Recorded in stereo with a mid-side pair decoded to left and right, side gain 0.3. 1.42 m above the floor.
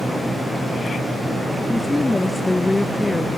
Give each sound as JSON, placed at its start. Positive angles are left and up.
{"t": 1.7, "sound": "a woman speaking", "azimuth_deg": 20}